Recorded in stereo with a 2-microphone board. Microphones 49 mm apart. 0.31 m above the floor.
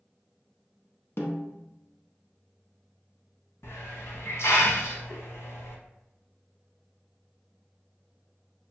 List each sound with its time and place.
1.2 s a snare drum: 60° left (ahead or behind), 0.7 m
3.6 s a hiss: 75° left (ahead or behind), 0.6 m